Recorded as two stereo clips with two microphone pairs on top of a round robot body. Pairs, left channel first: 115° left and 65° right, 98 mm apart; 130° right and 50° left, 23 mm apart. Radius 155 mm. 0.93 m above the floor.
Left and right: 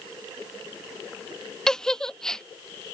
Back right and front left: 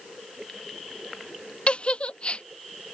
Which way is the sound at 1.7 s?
160° right.